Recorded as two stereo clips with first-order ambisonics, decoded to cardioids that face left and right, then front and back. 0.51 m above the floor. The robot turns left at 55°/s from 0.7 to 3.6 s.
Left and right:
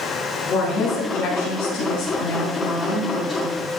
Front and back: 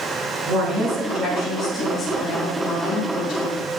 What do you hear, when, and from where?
0.5 s a woman speaking: 145° left, 6 m; by 3.7 s 15° right, 6 m